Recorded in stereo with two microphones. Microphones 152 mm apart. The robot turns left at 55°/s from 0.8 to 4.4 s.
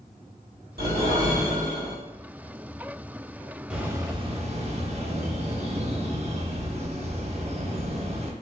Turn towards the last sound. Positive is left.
turn(degrees=-45)